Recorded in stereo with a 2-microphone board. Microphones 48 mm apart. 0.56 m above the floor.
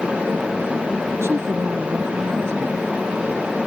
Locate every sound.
1.2 s a woman speaking: 55° right (ahead or behind)